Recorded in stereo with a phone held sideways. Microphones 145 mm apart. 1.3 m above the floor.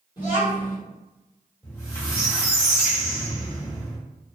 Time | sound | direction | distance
0.2 | a child speaking | 30° left (ahead or behind) | 1.3 m
1.6 | a squeak | 20° left (ahead or behind) | 1.0 m